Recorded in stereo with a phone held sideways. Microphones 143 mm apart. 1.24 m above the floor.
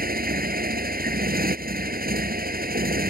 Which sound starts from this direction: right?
A motorcycle, at 0.0 s.